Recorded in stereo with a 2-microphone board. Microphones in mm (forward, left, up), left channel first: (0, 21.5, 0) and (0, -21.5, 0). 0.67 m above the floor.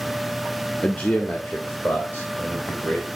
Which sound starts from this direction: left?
A man speaking, at 0.8 s.